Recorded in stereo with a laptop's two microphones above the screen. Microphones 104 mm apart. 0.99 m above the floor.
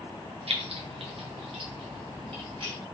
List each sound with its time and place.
0.5 s keys jangling: 70° right (ahead or behind), 0.5 m; by 2.8 s 55° right (ahead or behind), 1.7 m